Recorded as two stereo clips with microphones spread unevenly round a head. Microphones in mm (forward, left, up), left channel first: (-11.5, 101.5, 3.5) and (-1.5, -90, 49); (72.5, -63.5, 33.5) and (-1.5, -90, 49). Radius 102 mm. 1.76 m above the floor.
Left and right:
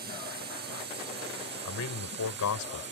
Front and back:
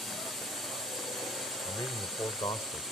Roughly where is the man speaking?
Left.